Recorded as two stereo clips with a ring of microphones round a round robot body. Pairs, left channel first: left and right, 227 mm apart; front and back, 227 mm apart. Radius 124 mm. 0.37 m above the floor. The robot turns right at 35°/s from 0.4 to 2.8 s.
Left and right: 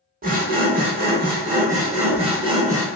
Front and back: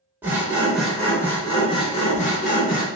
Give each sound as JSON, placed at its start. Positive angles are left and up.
{"t": 0.2, "sound": "sawing", "azimuth_deg": -105, "distance_m": 0.8}